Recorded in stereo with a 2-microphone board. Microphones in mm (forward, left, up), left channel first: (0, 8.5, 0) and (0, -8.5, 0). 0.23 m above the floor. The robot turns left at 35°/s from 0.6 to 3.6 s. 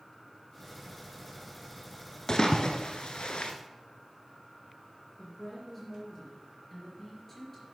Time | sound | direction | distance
2.3 | a splash | 40° left (ahead or behind) | 1.1 m
5.2 | a woman speaking | 10° left (ahead or behind) | 4.5 m